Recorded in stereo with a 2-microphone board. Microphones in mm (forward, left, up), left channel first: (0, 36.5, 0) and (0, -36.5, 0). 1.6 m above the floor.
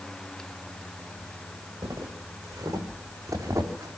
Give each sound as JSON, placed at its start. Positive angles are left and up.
{"t": 1.8, "sound": "footsteps", "side_deg": -55, "distance_m": 7.0}